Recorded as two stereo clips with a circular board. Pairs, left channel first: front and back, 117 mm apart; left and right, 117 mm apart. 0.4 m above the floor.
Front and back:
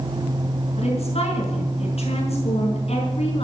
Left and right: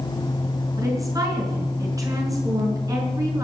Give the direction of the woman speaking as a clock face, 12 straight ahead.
1 o'clock.